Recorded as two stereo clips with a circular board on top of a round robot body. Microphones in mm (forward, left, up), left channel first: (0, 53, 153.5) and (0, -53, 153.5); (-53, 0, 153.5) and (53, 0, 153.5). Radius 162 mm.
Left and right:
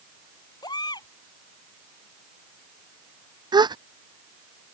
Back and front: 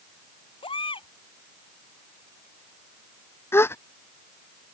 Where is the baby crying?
140° left.